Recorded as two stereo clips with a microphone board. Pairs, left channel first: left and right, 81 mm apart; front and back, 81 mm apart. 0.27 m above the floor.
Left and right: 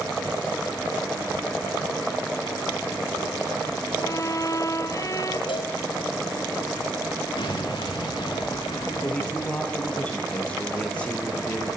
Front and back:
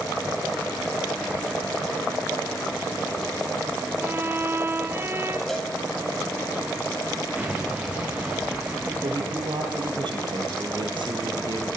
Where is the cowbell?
85° left, 3.5 m.